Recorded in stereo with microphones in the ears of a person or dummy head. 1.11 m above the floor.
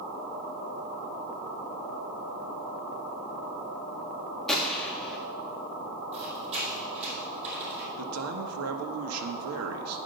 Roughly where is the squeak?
Right.